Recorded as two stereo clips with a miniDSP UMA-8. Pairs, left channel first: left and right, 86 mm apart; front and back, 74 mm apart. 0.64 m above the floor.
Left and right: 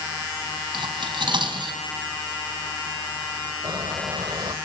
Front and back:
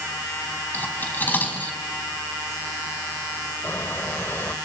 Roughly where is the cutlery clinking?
Ahead right.